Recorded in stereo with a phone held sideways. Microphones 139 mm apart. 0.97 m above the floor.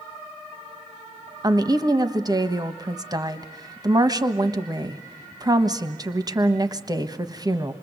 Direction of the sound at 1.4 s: 30° right (ahead or behind).